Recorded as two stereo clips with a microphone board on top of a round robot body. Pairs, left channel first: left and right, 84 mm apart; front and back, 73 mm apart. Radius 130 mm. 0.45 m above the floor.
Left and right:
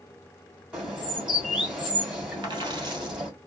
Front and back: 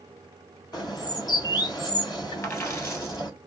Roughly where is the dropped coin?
Ahead right.